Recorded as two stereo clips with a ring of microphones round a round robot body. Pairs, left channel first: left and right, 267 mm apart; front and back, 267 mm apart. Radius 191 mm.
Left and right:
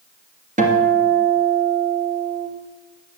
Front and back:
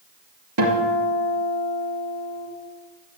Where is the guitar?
150° right, 2.5 m.